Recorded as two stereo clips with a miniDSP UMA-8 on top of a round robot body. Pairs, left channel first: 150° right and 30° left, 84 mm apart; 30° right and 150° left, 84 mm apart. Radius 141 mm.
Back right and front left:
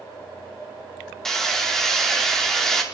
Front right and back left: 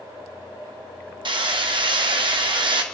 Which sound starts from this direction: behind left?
Hammering, at 1.2 s.